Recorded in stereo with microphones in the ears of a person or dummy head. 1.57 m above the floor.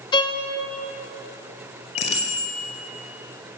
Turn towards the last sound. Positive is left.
turn(degrees=35)  # may be behind; listen again after turning